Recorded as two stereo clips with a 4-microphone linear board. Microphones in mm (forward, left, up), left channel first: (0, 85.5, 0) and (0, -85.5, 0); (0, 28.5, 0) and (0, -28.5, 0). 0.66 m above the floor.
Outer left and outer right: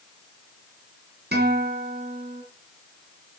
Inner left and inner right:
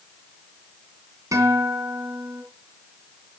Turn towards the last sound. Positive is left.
turn(degrees=-75)  # may be behind; listen again after turning